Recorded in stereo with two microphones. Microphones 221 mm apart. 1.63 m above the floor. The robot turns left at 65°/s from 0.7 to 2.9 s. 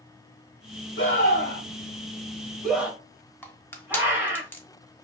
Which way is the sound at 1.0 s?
65° left (ahead or behind).